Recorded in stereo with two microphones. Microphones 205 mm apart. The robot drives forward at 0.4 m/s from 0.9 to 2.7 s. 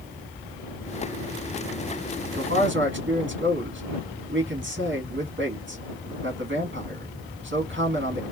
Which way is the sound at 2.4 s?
70° right (ahead or behind).